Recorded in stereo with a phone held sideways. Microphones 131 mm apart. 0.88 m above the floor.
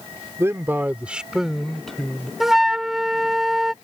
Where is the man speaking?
20° right (ahead or behind); by 2.3 s 5° left (ahead or behind).